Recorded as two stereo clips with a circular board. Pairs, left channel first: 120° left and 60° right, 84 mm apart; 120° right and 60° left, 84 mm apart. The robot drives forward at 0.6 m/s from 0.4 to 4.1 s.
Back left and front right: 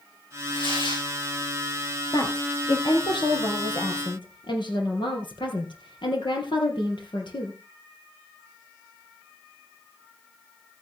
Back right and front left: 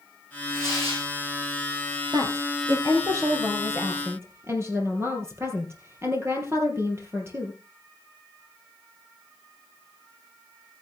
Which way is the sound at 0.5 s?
115° left.